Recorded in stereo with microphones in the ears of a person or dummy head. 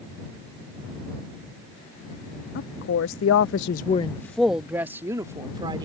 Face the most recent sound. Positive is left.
turn(degrees=-25)  # may be behind; listen again after turning